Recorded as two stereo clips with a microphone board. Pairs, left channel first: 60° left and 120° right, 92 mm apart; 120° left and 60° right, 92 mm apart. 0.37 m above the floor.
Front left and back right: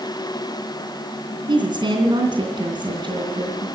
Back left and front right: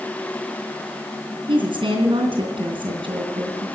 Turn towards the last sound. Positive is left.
turn(degrees=-85)